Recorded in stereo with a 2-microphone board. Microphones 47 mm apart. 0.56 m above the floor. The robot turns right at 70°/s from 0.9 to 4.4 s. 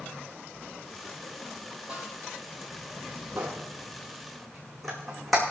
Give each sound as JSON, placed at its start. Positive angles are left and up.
{"t": 1.9, "sound": "a snare drum", "side_deg": -25, "distance_m": 4.5}
{"t": 3.4, "sound": "a squeak", "side_deg": -65, "distance_m": 2.5}